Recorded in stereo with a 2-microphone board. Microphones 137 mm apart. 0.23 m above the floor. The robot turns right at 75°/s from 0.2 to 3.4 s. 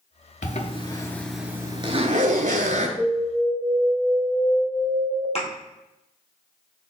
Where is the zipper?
70° left (ahead or behind), 0.7 m; by 2.9 s 65° right (ahead or behind), 0.7 m.